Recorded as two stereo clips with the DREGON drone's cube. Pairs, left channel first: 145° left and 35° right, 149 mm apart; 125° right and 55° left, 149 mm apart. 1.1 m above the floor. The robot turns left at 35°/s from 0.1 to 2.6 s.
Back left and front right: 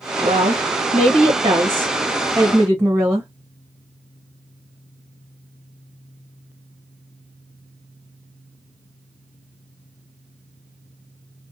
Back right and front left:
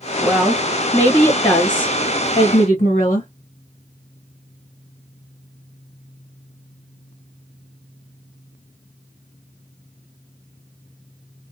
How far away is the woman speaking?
About 0.7 m.